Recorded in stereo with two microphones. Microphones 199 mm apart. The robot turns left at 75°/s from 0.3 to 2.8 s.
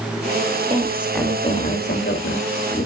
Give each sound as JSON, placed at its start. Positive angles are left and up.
{"t": 0.7, "sound": "a woman speaking", "azimuth_deg": -150, "distance_m": 2.5}